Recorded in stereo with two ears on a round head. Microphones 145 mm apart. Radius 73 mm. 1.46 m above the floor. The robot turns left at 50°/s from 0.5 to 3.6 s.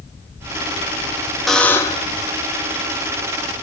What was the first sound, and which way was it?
A buzzer, straight behind.